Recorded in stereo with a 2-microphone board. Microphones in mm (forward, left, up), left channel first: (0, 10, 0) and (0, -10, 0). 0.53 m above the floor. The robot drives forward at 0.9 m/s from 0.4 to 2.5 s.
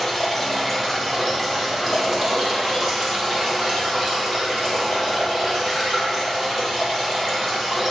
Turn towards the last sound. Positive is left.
turn(degrees=5)  # may be behind; listen again after turning